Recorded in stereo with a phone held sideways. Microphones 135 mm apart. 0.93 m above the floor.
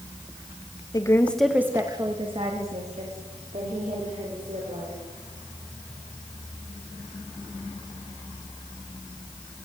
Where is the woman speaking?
30° left (ahead or behind), 1.1 m; by 5.0 s 70° right (ahead or behind), 4.5 m.